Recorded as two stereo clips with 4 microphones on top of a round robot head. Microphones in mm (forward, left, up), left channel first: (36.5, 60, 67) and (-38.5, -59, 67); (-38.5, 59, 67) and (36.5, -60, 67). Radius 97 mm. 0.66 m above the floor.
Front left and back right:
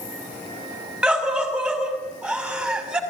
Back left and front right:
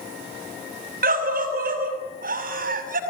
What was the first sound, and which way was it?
A scream, 40° right.